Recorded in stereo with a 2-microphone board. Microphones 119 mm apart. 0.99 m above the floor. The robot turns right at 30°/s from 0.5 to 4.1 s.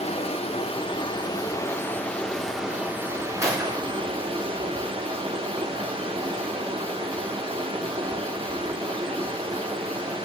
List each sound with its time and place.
0.0 s running water: 120° left, 1.8 m; by 10.2 s 130° right, 1.8 m
3.4 s a gunshot: 25° right (ahead or behind), 4 m; by 4.0 s 45° right (ahead or behind), 4 m